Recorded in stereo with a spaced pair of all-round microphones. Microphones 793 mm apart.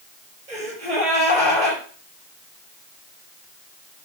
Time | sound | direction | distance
0.5 | a gasp | 65° right (ahead or behind) | 4.5 m